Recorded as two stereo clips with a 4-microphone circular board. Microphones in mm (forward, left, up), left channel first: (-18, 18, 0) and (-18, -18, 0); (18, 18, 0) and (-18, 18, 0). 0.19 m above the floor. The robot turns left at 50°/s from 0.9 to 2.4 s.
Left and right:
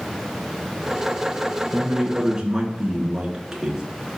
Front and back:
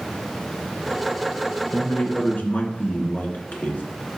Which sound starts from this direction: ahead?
A man speaking, at 1.7 s.